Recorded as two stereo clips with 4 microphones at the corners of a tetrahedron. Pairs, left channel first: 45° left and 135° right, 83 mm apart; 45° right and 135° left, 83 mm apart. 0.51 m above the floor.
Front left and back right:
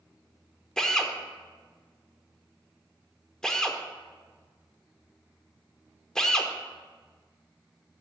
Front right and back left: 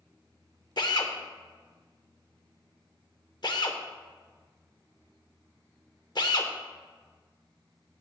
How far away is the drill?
About 0.7 m.